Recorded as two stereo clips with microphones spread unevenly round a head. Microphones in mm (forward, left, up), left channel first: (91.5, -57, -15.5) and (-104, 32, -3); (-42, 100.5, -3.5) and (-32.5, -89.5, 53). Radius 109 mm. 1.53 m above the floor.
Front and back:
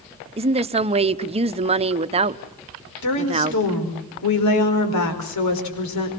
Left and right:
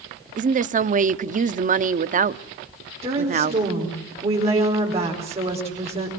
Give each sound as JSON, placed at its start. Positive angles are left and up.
{"t": 0.4, "sound": "a woman speaking", "azimuth_deg": -140, "distance_m": 0.9}
{"t": 3.0, "sound": "a woman speaking", "azimuth_deg": -25, "distance_m": 5.0}